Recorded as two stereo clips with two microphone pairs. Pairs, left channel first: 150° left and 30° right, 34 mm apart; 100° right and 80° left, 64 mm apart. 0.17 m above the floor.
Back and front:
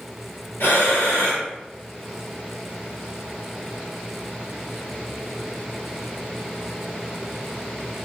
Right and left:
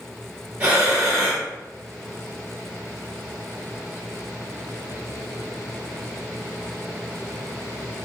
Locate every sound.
0.6 s breathing: 145° left, 2.0 m